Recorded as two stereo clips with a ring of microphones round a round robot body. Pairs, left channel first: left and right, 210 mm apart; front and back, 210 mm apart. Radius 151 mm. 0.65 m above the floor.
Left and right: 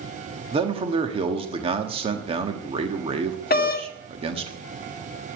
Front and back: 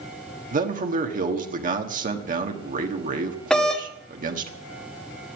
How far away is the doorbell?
About 1.2 m.